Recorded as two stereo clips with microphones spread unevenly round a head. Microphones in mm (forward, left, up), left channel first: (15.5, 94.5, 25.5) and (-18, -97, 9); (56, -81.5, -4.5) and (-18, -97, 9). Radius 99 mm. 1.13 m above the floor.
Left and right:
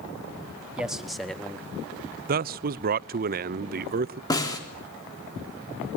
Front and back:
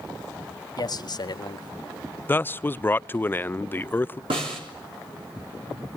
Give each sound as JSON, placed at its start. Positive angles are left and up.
{"t": 0.8, "sound": "a man speaking", "azimuth_deg": -15, "distance_m": 2.0}
{"t": 2.3, "sound": "a man speaking", "azimuth_deg": -55, "distance_m": 0.5}
{"t": 4.3, "sound": "a snare drum", "azimuth_deg": 155, "distance_m": 3.5}